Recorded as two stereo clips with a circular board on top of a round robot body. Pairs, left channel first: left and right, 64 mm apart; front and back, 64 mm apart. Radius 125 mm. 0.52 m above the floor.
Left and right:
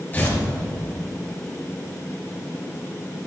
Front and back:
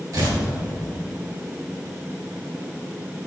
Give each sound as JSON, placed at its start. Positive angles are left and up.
{"t": 0.1, "sound": "tearing paper", "azimuth_deg": 150, "distance_m": 3.0}